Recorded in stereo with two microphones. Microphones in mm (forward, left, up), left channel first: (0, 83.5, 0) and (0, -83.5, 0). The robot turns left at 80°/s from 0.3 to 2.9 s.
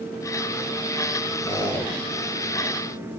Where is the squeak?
40° left, 5 m; by 1.9 s straight ahead, 5 m.